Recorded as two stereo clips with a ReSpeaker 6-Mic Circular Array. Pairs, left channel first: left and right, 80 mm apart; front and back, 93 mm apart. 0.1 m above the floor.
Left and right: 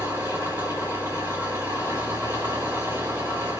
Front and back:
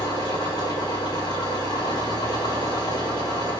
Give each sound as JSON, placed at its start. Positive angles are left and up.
{"t": 0.0, "sound": "an engine running", "azimuth_deg": -30, "distance_m": 6.0}